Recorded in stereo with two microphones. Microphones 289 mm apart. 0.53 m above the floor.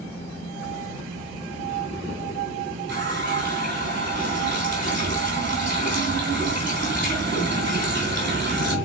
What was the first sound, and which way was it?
A running tap, 40° right (ahead or behind).